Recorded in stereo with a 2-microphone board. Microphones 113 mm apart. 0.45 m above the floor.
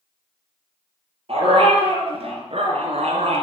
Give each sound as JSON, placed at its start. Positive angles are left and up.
{"t": 1.3, "sound": "a dog barking", "side_deg": -60, "distance_m": 4.5}